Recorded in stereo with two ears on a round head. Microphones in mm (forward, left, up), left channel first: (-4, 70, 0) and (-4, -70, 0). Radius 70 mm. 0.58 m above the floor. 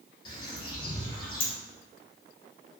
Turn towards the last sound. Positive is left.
turn(degrees=30)  # may be behind; listen again after turning